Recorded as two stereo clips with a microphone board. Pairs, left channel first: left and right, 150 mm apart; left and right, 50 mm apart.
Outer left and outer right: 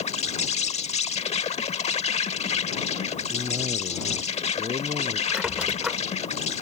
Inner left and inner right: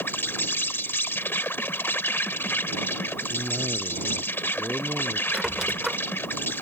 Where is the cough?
40° right (ahead or behind).